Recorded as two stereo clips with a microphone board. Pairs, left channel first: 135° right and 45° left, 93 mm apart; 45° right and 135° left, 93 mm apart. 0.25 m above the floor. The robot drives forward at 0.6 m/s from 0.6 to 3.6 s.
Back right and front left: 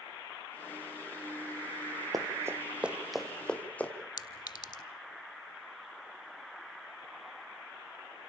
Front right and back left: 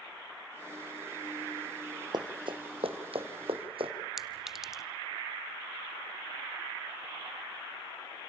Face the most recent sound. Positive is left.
turn(degrees=-140)